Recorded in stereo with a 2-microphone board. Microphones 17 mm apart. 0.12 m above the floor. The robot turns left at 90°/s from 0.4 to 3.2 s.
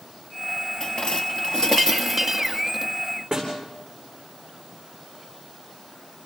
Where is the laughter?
No laughter in this recording.